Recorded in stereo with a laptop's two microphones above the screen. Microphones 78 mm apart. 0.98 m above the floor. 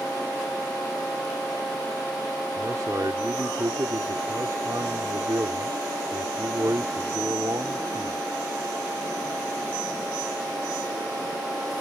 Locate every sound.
2.6 s a man speaking: 55° right (ahead or behind)